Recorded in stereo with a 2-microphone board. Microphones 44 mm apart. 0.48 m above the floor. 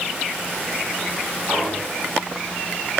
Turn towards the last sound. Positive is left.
turn(degrees=40)  # may be behind; listen again after turning